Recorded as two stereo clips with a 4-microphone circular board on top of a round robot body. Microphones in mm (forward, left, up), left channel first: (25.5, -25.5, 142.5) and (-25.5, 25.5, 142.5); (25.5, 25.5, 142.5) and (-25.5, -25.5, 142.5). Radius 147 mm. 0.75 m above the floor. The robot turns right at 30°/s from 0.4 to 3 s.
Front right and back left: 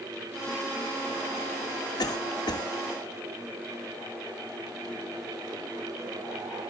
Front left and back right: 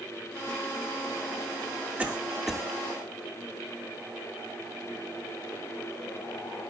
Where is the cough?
65° right, 2.5 m; by 2.7 s 40° right, 2.5 m.